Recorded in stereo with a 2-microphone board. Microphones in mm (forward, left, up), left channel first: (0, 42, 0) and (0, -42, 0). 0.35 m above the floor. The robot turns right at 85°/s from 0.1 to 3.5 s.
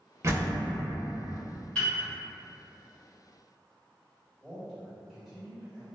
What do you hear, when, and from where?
0.2 s a door slam: 60° right, 0.6 m; by 0.7 s 30° right, 0.6 m
1.8 s a piano: 15° left (ahead or behind), 1.9 m; by 2.0 s 30° left (ahead or behind), 1.9 m
4.4 s a man speaking: 5° right (ahead or behind), 1.5 m